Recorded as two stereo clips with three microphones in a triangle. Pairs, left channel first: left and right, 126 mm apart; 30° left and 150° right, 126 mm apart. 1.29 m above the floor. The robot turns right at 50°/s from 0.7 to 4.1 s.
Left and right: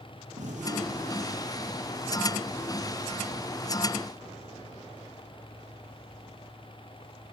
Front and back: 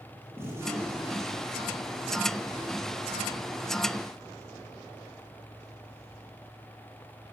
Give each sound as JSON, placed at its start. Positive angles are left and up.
{"t": 0.4, "sound": "a gunshot", "azimuth_deg": -80, "distance_m": 7.0}